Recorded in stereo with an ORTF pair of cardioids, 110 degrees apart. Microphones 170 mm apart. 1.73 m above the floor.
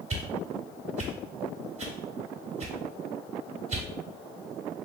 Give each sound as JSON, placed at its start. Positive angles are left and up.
{"t": 0.1, "sound": "a whoosh", "azimuth_deg": -40, "distance_m": 1.3}